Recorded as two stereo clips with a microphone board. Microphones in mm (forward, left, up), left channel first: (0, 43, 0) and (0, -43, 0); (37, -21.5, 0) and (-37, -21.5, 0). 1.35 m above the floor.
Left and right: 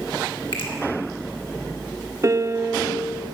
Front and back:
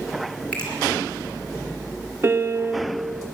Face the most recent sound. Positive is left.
turn(degrees=-130)